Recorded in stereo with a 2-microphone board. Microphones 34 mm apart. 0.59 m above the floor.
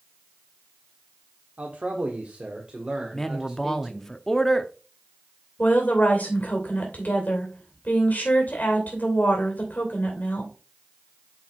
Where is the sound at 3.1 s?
15° left (ahead or behind), 0.7 m.